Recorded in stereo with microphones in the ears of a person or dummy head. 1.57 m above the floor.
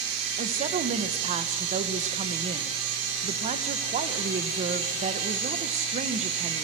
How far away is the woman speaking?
About 1.4 m.